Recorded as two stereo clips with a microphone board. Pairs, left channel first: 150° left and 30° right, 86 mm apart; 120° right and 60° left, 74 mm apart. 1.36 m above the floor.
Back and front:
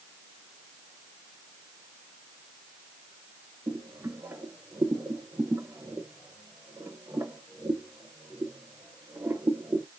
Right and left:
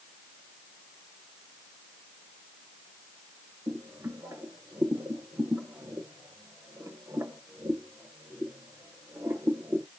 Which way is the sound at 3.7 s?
20° left.